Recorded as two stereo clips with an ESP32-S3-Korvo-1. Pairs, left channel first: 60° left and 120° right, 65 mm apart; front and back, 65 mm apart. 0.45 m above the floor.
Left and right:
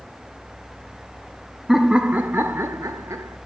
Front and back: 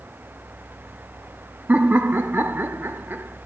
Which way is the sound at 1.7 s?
160° left.